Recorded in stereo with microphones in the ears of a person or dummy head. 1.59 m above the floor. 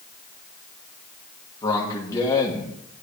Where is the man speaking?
15° left (ahead or behind), 1.6 m.